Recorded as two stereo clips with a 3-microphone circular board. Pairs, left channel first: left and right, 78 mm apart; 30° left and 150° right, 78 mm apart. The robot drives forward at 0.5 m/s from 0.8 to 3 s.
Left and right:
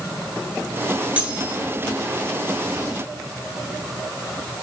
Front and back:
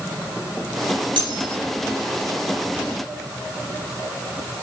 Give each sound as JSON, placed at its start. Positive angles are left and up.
{"t": 1.2, "sound": "cutlery clinking", "azimuth_deg": -165, "distance_m": 8.0}